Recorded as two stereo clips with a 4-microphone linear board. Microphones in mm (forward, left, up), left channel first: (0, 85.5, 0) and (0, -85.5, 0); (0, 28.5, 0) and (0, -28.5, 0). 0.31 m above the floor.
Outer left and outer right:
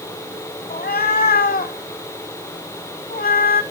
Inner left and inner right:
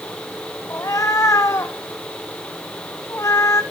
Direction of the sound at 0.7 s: 65° left (ahead or behind).